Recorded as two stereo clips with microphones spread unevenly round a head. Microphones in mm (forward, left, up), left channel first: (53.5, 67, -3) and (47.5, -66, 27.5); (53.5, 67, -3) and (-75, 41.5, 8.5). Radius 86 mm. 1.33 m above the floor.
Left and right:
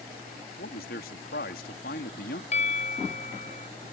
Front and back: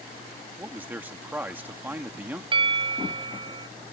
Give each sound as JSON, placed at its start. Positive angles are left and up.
{"t": 0.6, "sound": "a man speaking", "azimuth_deg": 115}
{"t": 2.5, "sound": "a bell", "azimuth_deg": 145}